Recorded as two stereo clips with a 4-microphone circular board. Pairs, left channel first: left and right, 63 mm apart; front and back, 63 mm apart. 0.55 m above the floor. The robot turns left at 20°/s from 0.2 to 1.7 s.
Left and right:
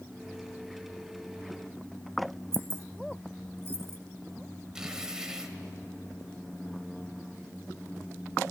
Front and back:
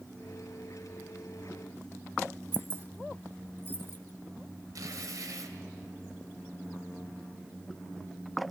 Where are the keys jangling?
130° right, 1.0 m.